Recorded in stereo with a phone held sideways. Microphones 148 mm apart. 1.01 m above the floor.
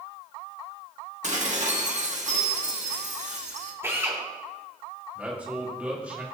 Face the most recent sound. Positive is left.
turn(degrees=-10)  # may be behind; listen again after turning